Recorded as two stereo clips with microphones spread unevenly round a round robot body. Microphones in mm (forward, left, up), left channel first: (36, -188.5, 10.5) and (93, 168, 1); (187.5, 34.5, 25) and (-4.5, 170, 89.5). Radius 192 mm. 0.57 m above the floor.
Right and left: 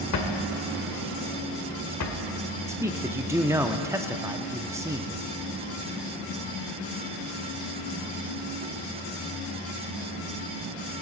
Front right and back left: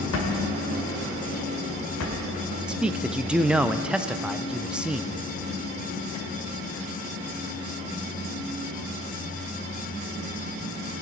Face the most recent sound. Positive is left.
turn(degrees=20)